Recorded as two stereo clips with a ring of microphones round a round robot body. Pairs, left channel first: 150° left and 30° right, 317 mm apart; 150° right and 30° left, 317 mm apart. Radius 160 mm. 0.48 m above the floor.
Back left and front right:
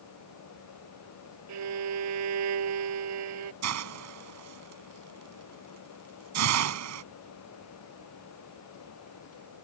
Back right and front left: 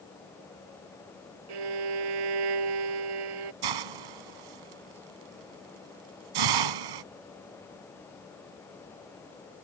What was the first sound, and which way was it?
A violin, 15° left.